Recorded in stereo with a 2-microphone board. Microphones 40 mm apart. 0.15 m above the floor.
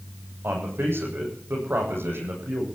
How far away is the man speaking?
About 8 m.